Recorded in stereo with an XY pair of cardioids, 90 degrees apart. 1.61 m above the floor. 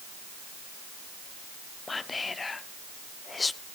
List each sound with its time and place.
1.9 s whispering: 30° left, 0.7 m